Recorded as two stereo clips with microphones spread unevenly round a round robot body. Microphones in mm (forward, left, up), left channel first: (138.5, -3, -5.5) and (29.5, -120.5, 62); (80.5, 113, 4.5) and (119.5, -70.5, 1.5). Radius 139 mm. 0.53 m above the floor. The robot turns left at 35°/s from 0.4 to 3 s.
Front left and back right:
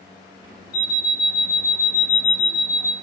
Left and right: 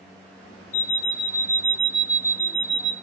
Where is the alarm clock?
55° left, 1.0 m; by 2.9 s 25° right, 1.0 m.